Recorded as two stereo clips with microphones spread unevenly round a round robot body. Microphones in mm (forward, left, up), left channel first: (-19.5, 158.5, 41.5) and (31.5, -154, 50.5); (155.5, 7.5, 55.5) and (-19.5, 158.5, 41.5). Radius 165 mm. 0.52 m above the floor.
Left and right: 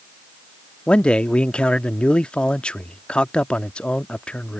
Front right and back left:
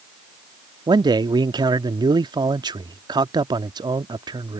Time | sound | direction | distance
0.9 | a man speaking | straight behind | ?